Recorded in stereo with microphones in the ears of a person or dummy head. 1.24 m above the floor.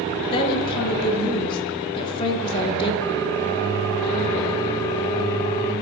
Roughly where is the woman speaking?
Left.